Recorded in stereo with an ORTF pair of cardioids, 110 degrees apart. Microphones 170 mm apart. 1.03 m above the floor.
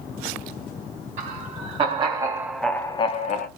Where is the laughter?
45° right, 1.2 m; by 3.5 s 60° left, 0.6 m.